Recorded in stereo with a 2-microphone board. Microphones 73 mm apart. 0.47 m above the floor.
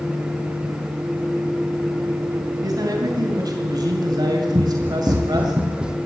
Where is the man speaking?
60° right (ahead or behind), 3 m; by 5.5 s 65° right (ahead or behind), 1.9 m.